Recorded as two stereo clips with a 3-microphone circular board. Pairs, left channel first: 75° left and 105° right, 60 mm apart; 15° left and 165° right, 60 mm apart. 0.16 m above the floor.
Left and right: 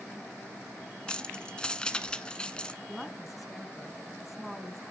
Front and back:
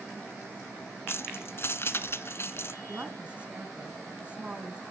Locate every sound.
1.1 s keys jangling: 10° left, 1.0 m
2.9 s a woman speaking: 170° left, 1.5 m